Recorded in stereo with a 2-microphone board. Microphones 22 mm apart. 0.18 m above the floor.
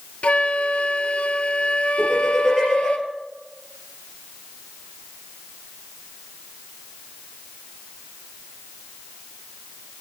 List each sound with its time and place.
0.2 s a flute: 85° left, 0.5 m
2.0 s laughter: 10° right (ahead or behind), 4.5 m